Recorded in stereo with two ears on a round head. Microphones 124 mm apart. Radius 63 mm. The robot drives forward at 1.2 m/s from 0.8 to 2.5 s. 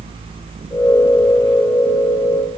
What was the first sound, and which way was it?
Only background noise.